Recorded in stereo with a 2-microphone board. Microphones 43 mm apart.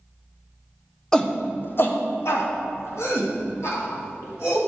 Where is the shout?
10° left (ahead or behind), 0.6 m; by 4.6 s 75° left (ahead or behind), 3 m.